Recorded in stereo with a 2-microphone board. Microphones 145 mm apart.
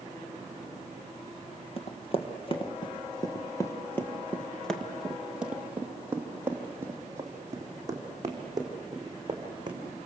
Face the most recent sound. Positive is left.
turn(degrees=-30)  # may be behind; listen again after turning